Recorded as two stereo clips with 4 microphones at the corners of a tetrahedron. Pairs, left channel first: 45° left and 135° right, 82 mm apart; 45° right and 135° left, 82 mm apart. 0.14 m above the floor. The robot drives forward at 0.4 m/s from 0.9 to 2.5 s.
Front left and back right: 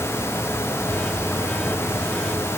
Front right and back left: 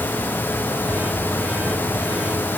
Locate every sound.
Only background noise.